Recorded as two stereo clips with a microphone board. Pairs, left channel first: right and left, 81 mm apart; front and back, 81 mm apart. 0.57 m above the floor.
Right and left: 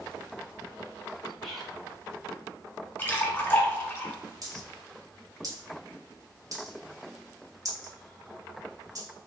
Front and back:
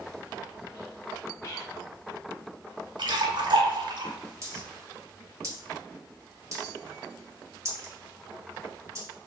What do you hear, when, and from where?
1.4 s whispering: 5° right, 1.5 m
3.0 s a splash: 160° right, 0.9 m
4.4 s a dropped coin: 130° left, 1.3 m